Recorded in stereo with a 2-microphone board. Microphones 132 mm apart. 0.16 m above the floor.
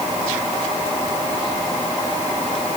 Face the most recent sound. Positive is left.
No sound to turn to.